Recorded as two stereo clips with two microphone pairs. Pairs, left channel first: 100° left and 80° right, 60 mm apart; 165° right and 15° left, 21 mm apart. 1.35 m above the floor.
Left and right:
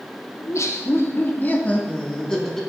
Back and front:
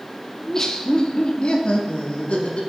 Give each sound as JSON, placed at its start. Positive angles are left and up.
{"t": 0.4, "sound": "laughter", "azimuth_deg": 125, "distance_m": 1.3}